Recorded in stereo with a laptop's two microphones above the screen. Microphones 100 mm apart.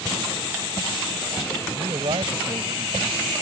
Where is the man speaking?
70° right (ahead or behind).